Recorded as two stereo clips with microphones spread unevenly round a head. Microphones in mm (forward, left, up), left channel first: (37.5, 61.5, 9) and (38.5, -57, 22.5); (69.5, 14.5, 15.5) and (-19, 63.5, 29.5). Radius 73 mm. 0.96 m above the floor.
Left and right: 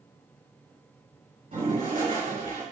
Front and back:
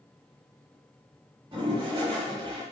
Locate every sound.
1.5 s a toilet flushing: 140° right, 4 m